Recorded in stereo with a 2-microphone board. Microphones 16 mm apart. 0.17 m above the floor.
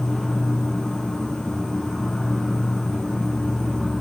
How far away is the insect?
About 2.5 m.